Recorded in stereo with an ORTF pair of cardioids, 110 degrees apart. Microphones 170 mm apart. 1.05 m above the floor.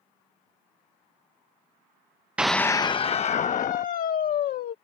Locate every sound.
2.4 s a scream: 10° right; by 4.7 s 60° left